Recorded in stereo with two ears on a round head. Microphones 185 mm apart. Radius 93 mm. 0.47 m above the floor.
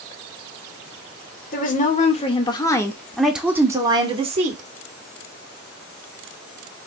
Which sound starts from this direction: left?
A woman speaking, at 1.5 s.